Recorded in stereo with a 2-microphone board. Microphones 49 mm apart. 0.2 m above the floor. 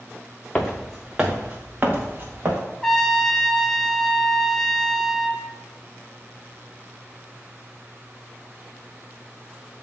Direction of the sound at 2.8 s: 10° left (ahead or behind).